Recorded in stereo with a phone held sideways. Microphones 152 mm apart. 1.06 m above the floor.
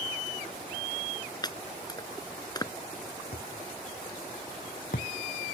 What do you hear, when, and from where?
1.4 s chopping: 25° left (ahead or behind)
3.3 s a thud: 70° left (ahead or behind)